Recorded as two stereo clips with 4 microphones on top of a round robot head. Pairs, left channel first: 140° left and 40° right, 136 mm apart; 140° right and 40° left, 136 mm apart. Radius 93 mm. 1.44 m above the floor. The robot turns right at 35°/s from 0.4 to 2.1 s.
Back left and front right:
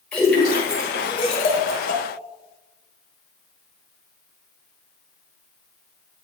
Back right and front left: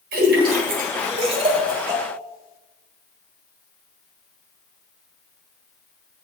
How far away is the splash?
About 1.3 m.